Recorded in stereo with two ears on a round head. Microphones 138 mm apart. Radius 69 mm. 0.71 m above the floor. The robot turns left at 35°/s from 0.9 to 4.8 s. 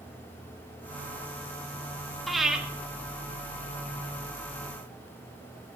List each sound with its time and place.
2.3 s breathing: centre (ahead or behind), 1.0 m; by 2.6 s 5° right (ahead or behind), 1.0 m